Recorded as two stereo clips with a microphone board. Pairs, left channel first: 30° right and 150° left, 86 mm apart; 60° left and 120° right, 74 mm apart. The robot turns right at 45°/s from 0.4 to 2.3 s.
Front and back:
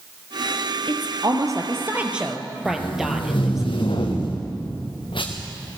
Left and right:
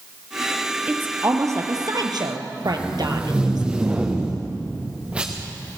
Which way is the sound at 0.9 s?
170° left.